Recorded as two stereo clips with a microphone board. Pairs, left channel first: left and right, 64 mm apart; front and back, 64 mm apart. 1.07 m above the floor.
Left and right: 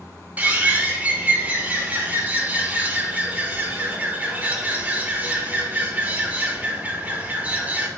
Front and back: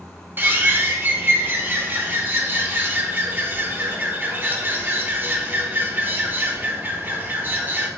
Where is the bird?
140° right, 0.8 m.